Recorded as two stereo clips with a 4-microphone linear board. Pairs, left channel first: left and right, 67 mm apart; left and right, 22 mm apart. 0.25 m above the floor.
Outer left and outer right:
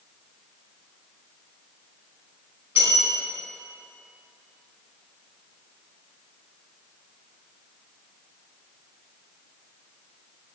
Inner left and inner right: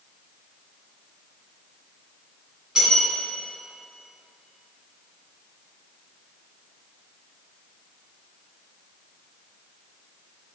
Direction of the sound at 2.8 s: 25° right (ahead or behind).